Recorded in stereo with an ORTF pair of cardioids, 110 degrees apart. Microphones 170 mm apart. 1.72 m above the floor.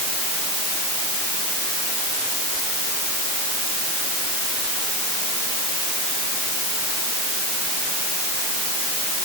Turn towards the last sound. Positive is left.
No sound to turn to.